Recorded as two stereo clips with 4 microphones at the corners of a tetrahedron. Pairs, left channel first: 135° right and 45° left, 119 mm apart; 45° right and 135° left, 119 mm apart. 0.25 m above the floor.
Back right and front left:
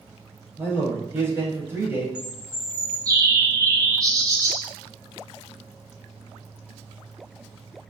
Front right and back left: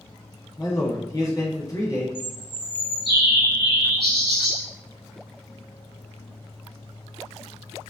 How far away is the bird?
About 0.9 m.